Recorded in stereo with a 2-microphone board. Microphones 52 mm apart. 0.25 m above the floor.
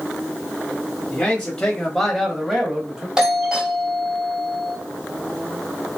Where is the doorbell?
15° right (ahead or behind), 1.6 m.